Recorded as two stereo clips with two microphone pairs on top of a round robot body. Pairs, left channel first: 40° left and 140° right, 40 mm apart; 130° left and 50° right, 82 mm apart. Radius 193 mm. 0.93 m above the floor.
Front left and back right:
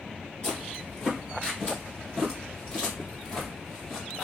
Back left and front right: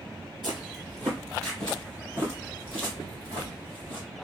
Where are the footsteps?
20° right, 0.9 m; by 4.0 s 115° left, 1.8 m.